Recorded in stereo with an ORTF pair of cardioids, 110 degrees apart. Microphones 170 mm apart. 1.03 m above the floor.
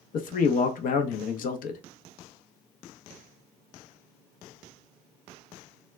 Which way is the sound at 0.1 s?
60° left.